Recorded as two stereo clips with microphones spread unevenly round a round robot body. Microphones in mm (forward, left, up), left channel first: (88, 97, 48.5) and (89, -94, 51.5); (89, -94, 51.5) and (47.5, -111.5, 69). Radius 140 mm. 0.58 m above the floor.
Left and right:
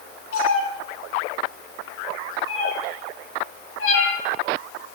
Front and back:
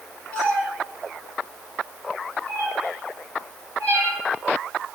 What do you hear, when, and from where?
0.3 s a cat meowing: 95° left, 7.5 m; by 4.2 s 90° left, 3.5 m